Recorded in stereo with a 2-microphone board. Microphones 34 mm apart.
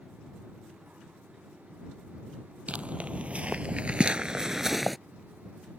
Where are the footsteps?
40° right (ahead or behind); by 5.0 s centre (ahead or behind).